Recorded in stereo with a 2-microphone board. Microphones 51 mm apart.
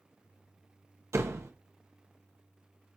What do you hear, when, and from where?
1.1 s a door slam: 65° right (ahead or behind), 1.1 m